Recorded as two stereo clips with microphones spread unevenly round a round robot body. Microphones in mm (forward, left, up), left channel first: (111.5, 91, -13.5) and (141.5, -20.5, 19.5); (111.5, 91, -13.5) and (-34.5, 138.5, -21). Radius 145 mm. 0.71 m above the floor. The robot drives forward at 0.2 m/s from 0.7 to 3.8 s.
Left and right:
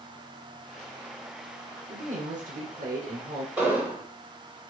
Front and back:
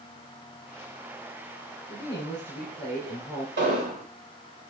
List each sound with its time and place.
1.9 s a woman speaking: 65° right, 2.5 m; by 3.5 s 75° right, 2.5 m
3.6 s an explosion: 160° right, 3.5 m